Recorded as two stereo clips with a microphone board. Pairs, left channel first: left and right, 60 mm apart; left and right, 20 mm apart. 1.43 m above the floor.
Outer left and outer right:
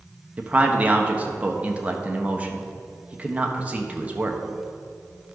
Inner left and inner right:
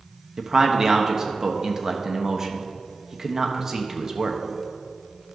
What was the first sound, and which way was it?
A man speaking, 20° right (ahead or behind).